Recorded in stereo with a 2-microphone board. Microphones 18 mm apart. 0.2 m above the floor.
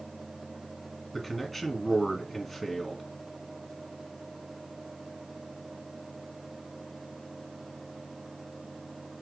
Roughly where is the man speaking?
Centre.